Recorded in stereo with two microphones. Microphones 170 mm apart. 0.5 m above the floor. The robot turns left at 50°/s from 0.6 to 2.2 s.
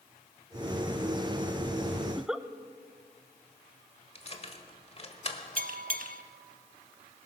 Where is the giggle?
10° right (ahead or behind), 0.5 m; by 2.5 s 5° right (ahead or behind), 0.5 m.